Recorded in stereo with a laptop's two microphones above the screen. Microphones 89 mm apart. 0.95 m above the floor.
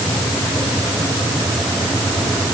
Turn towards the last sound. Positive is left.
No sound to turn to.